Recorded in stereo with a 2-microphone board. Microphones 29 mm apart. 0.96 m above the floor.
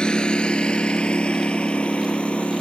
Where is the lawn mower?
35° left (ahead or behind); by 2.6 s 45° left (ahead or behind).